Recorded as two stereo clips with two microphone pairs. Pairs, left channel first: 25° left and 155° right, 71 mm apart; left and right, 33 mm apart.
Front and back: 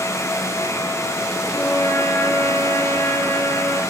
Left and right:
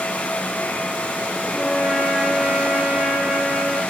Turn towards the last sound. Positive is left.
turn(degrees=-15)